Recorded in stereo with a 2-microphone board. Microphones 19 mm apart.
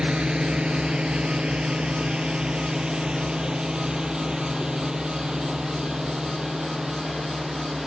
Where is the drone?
75° right (ahead or behind); by 7.9 s 50° right (ahead or behind).